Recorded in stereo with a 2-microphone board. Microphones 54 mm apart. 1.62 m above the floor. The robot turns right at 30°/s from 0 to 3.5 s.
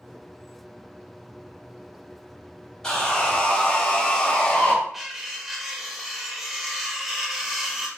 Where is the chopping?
I don't hear chopping.